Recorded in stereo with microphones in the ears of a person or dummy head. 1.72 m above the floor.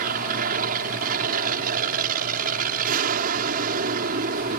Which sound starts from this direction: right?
An aircraft, at 0.0 s.